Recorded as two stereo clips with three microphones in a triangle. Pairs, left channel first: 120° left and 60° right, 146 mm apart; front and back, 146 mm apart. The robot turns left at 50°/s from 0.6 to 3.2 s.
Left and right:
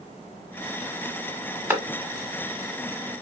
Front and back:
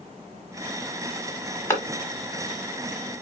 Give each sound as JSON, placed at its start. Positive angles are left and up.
{"t": 1.7, "sound": "a clap", "azimuth_deg": -15, "distance_m": 1.1}